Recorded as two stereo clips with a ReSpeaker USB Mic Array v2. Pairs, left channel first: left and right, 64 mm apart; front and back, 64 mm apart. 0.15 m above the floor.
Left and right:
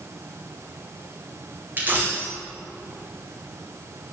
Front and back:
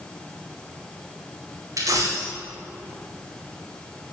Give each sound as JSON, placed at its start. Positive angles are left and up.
{"t": 1.8, "sound": "a dropped coin", "azimuth_deg": -150, "distance_m": 5.0}